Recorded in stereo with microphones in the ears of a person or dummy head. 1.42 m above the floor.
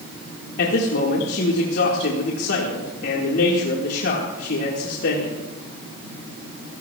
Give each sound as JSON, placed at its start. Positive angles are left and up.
{"t": 0.6, "sound": "a man speaking", "side_deg": 65, "distance_m": 1.9}